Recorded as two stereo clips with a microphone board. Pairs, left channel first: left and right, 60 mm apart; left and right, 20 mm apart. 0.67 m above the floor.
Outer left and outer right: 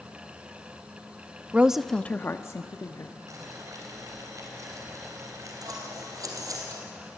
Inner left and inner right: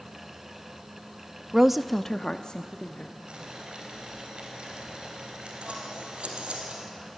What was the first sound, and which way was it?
A woman speaking, 25° right (ahead or behind).